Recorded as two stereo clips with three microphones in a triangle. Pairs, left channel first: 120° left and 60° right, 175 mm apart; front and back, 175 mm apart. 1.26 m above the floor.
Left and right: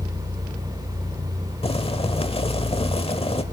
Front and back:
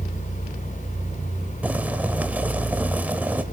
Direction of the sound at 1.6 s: 105° left.